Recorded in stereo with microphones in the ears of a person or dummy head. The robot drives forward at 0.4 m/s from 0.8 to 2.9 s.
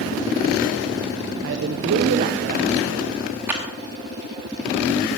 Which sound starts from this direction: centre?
A clap, at 3.5 s.